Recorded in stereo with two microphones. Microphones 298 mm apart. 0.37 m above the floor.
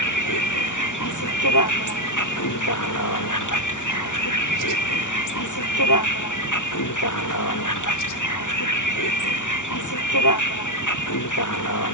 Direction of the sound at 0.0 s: 80° left.